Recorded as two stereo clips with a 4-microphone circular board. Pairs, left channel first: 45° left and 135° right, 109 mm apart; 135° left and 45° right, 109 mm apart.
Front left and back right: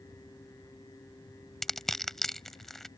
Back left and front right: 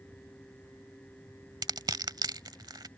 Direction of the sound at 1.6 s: 40° right.